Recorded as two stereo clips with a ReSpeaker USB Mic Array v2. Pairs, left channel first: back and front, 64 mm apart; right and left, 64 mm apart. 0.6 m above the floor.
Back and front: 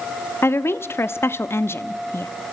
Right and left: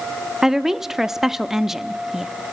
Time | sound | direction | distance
0.4 | a woman speaking | 170° left | 0.8 m